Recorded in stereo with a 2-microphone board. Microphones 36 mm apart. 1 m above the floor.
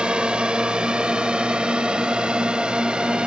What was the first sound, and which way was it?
A drone, 25° right (ahead or behind).